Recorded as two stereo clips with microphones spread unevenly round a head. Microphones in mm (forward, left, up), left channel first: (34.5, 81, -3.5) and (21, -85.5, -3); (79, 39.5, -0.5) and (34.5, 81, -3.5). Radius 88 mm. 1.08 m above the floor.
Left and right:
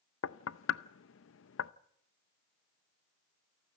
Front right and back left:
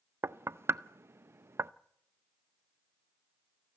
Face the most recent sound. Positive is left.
turn(degrees=85)